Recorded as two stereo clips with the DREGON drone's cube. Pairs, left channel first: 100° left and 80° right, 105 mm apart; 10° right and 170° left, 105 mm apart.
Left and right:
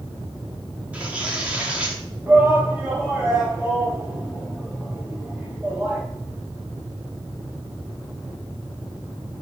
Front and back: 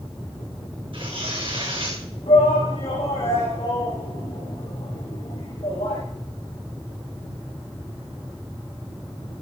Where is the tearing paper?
155° right, 7.5 m.